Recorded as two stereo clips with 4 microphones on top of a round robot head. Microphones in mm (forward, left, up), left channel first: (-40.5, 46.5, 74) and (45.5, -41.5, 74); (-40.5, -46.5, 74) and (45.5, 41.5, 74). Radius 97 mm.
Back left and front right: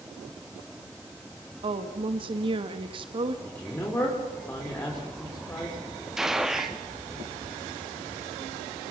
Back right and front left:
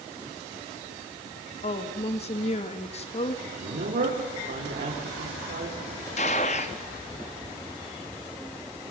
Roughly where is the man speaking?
Ahead left.